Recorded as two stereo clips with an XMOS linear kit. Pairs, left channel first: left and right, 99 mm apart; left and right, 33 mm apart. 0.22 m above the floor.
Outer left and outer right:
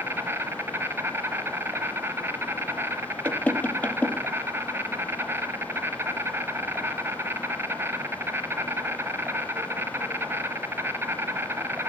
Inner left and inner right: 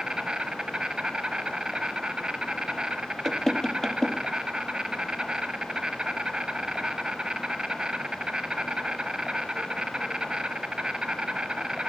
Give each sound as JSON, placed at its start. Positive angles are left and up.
{"t": 0.0, "sound": "an insect", "side_deg": -20, "distance_m": 0.7}
{"t": 3.2, "sound": "knocking", "side_deg": 15, "distance_m": 0.7}